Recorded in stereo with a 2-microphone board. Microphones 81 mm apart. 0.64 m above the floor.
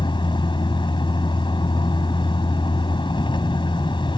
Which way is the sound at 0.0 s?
85° left.